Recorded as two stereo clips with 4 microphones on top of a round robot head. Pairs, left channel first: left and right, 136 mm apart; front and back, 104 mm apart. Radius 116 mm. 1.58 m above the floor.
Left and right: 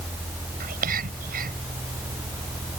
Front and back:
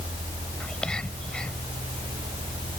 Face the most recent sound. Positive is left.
turn(degrees=-85)